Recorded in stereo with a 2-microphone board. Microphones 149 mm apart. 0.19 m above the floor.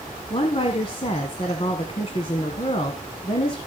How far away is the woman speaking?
About 1.7 m.